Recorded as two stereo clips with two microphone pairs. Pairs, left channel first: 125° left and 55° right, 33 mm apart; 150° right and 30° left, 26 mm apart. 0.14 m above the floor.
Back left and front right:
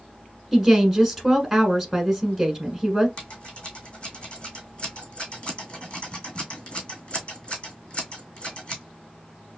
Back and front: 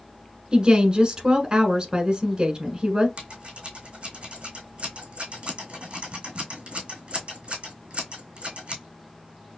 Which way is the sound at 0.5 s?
25° left.